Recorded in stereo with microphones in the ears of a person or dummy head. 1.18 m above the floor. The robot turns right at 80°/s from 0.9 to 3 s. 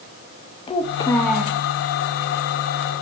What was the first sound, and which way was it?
A child speaking, 150° left.